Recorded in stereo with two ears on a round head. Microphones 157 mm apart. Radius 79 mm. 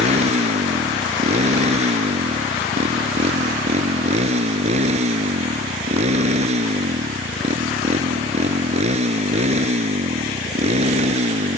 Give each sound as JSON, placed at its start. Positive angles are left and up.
{"t": 0.0, "sound": "a motorcycle", "side_deg": -40}